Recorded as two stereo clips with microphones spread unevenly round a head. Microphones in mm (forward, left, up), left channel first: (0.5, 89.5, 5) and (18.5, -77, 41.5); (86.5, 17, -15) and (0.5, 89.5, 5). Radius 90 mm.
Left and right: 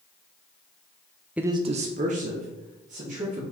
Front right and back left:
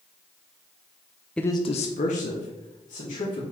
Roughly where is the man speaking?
Behind right.